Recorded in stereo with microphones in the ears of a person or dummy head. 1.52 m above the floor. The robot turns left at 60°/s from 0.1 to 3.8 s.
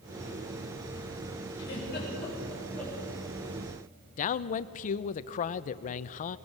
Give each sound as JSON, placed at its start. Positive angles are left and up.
{"t": 1.6, "sound": "a giggle", "side_deg": 80, "distance_m": 7.0}
{"t": 4.2, "sound": "a man speaking", "side_deg": 40, "distance_m": 0.7}